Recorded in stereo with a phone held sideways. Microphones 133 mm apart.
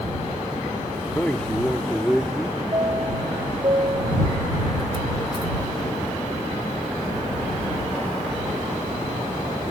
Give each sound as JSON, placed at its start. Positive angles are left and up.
{"t": 1.1, "sound": "a man speaking", "side_deg": 10}
{"t": 2.7, "sound": "a chime", "side_deg": -35}